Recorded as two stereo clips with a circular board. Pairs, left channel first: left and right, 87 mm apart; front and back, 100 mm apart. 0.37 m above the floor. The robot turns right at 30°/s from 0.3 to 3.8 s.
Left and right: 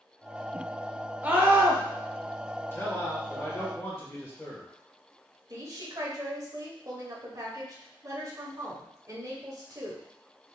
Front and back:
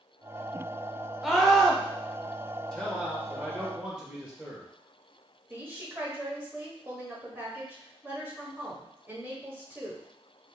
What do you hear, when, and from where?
1.2 s a scream: 95° right, 0.9 m; by 1.8 s 80° right, 0.9 m
2.7 s a man speaking: 75° left, 1.3 m; by 4.7 s 110° left, 1.3 m
5.5 s a woman speaking: 115° right, 1.2 m